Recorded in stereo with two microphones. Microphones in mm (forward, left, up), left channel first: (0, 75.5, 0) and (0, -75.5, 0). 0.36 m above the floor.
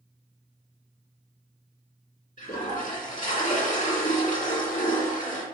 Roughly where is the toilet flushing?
Left.